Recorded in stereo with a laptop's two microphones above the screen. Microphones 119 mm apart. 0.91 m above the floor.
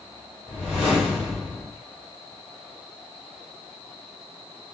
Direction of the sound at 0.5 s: 10° right (ahead or behind).